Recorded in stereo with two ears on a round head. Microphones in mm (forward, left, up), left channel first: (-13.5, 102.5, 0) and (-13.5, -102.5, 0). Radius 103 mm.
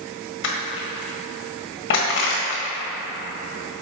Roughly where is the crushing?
Left.